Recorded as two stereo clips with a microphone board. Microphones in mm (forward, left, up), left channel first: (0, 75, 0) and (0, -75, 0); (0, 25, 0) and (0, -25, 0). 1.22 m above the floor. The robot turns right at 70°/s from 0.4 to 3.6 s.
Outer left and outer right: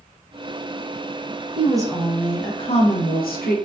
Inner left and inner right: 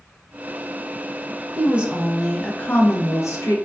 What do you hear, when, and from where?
1.6 s a woman speaking: 40° right, 0.7 m; by 3.6 s 100° left, 0.7 m